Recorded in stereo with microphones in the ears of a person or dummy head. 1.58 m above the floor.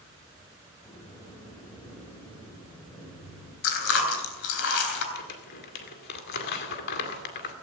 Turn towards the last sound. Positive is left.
turn(degrees=60)  # may be behind; listen again after turning